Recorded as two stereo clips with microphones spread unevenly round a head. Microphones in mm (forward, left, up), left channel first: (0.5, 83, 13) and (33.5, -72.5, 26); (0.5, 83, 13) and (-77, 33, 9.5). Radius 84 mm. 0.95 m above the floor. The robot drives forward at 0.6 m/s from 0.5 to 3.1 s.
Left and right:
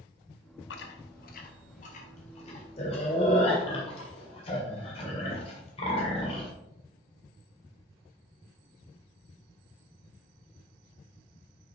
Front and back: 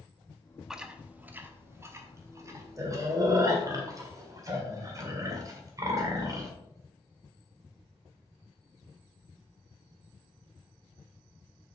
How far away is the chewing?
About 0.9 m.